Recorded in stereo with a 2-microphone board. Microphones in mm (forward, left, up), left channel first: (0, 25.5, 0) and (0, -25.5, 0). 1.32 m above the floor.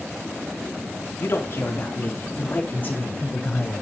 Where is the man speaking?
55° left (ahead or behind), 2.5 m; by 3.8 s 30° left (ahead or behind), 4.5 m.